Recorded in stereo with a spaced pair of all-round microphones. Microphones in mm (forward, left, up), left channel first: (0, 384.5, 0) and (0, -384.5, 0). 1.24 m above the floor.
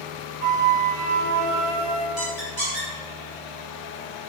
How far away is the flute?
About 1.6 m.